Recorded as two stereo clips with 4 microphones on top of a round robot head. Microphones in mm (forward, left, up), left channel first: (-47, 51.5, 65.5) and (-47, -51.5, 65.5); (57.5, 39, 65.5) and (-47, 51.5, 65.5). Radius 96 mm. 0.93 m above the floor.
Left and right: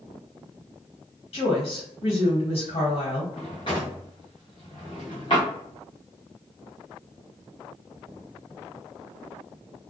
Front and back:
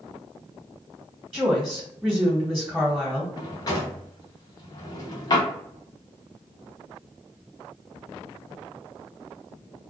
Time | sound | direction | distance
1.3 | a woman speaking | 95° left | 1.3 m
3.4 | a drawer | 35° left | 0.6 m